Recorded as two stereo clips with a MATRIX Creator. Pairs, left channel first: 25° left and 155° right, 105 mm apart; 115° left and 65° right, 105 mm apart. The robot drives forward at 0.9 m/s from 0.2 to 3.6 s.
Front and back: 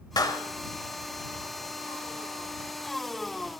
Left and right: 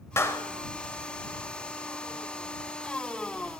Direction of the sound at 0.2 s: 55° left.